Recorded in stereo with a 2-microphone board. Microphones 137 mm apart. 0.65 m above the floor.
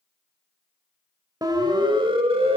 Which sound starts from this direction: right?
A siren, at 1.4 s.